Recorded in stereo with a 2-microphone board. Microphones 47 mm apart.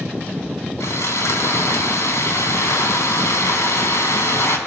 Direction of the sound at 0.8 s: 80° left.